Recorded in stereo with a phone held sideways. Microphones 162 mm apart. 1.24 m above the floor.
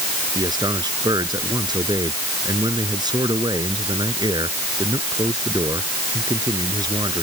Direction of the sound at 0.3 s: 25° right (ahead or behind).